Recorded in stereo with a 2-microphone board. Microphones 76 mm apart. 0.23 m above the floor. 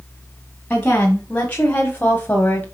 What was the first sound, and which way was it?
A woman speaking, 15° left (ahead or behind).